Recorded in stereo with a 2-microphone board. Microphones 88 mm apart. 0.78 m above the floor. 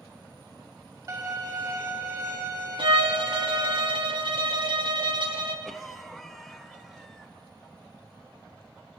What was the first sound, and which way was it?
A violin, 45° right (ahead or behind).